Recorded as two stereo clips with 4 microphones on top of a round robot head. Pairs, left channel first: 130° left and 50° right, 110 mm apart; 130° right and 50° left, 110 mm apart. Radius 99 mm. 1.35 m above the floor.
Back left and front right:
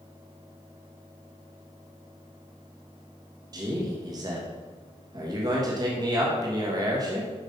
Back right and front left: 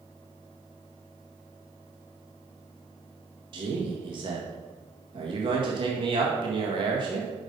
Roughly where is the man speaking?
Ahead.